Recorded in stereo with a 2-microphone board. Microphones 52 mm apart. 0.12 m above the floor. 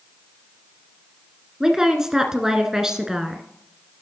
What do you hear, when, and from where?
1.6 s a woman speaking: 10° right (ahead or behind), 1.3 m